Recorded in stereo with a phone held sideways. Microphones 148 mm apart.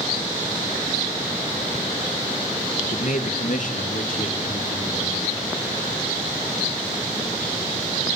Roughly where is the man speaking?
Left.